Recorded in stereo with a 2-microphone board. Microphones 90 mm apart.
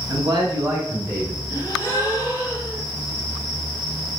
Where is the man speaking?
55° right (ahead or behind), 1.8 m; by 1.4 s 15° right (ahead or behind), 1.3 m.